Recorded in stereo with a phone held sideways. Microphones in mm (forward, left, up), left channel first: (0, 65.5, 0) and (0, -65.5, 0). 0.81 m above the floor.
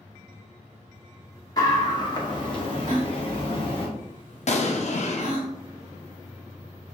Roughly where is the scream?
Left.